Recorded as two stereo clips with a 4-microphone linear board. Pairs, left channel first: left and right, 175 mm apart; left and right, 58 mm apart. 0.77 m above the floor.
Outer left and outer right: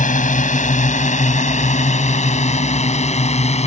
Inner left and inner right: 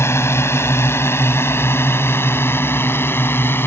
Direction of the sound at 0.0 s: 50° left (ahead or behind).